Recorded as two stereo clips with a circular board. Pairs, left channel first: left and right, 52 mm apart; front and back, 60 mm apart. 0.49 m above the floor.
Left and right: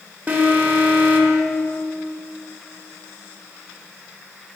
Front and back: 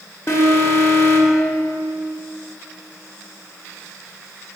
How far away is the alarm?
About 1.1 m.